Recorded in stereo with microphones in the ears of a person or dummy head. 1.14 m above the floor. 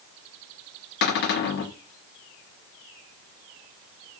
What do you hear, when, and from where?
1.0 s a cupboard door: 55° left (ahead or behind), 0.8 m